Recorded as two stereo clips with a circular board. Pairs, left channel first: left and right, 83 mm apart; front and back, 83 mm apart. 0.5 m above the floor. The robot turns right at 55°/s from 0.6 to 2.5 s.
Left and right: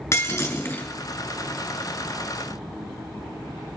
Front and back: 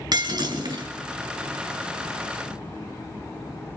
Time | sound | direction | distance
0.1 | breaking glass | 145° left | 4 m